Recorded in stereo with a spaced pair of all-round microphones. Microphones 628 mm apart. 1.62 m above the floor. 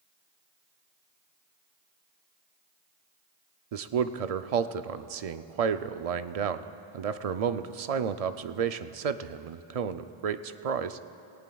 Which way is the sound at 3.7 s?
70° right (ahead or behind).